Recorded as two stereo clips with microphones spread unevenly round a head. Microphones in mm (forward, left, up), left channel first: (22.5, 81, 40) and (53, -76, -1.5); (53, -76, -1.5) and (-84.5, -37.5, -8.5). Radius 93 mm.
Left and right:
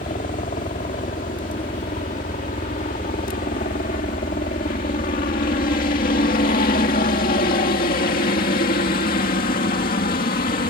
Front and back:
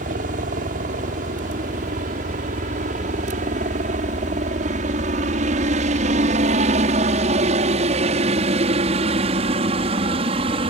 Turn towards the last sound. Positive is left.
turn(degrees=125)